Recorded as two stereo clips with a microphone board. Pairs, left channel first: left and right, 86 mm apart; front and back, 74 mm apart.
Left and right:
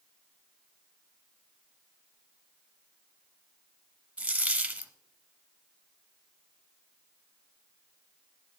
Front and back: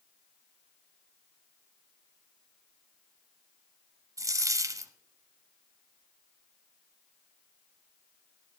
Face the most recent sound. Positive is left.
turn(degrees=-160)